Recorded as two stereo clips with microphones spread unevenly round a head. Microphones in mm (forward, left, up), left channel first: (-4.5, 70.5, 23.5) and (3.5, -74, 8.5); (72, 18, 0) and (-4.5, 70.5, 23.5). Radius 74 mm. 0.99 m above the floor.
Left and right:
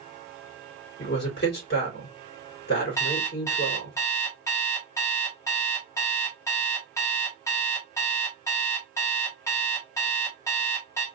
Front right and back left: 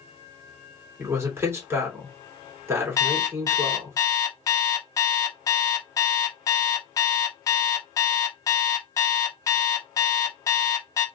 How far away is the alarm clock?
About 0.9 m.